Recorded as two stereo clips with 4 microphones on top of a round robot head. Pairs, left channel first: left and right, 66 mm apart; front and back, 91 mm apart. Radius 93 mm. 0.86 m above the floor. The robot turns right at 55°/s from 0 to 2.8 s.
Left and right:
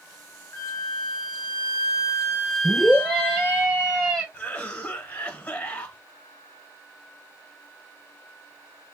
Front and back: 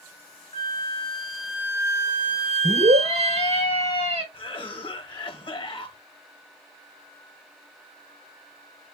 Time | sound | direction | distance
0.5 | a flute | 50° left | 1.4 m
2.6 | a scream | 170° left | 3 m
4.3 | a cough | 30° left | 1.2 m